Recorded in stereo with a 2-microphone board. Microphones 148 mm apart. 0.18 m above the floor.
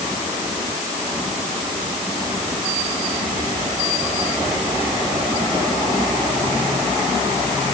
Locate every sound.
Only background noise.